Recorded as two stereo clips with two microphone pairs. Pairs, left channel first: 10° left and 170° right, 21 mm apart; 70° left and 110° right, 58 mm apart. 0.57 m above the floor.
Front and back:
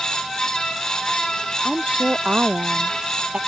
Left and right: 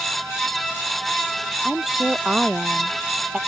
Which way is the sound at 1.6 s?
175° left.